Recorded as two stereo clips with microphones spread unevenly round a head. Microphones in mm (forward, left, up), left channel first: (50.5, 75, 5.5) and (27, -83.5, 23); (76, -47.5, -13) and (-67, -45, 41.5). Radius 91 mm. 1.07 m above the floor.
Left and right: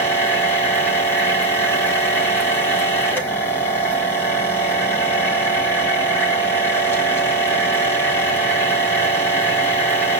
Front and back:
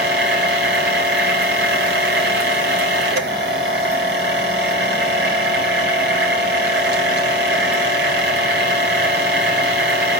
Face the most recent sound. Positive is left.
turn(degrees=160)